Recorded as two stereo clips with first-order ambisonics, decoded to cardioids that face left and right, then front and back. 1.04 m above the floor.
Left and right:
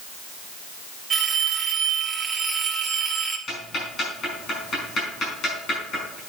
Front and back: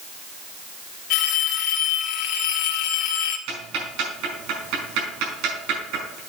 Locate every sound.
1.1 s a phone ringing: 20° right, 1.4 m
3.5 s ticking: 150° left, 5 m